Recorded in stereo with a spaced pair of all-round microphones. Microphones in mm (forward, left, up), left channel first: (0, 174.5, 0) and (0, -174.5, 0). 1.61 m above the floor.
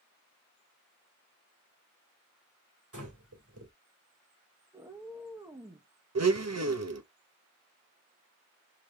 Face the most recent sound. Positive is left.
turn(degrees=-50)  # may be behind; listen again after turning